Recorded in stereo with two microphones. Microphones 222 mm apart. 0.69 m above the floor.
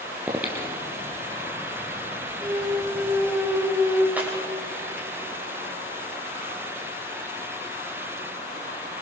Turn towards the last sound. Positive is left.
turn(degrees=-5)  # may be behind; listen again after turning